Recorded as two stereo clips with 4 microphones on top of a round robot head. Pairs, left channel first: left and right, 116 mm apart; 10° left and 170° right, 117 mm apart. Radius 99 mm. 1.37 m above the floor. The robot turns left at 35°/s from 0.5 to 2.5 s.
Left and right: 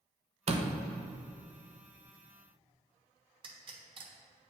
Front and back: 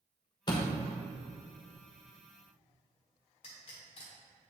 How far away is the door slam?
About 0.8 m.